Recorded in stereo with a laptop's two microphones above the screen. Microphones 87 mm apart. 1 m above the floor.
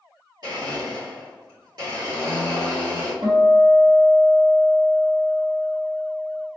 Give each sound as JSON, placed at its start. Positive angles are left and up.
{"t": 0.4, "sound": "a blender", "side_deg": -60, "distance_m": 1.7}
{"t": 3.2, "sound": "a guitar", "side_deg": -70, "distance_m": 1.3}